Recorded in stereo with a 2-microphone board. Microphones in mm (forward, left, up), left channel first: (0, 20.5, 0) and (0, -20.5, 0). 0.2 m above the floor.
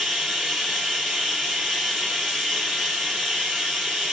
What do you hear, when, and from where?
0.0 s running water: 10° right (ahead or behind), 1.7 m